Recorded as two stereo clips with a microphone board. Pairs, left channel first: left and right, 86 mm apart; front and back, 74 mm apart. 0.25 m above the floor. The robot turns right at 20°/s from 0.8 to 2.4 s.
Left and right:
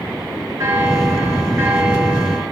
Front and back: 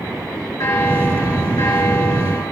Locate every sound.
0.6 s a bell: 40° right, 5 m; by 2.4 s 10° right, 5 m